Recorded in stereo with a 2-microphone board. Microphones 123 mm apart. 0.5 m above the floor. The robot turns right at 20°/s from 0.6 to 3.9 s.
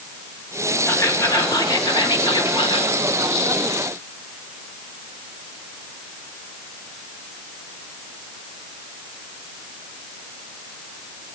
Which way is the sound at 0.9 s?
30° left.